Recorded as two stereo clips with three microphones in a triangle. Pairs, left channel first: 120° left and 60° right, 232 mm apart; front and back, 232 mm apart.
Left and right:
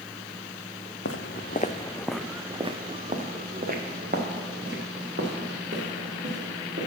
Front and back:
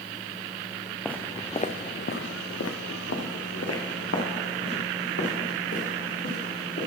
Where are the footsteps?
90° left, 0.7 m; by 6.9 s 20° right, 3.5 m.